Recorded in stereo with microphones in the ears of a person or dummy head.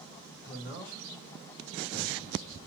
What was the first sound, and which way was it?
A man speaking, 20° right (ahead or behind).